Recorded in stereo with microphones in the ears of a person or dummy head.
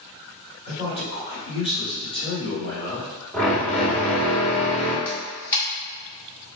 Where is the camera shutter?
15° left (ahead or behind), 1.3 m.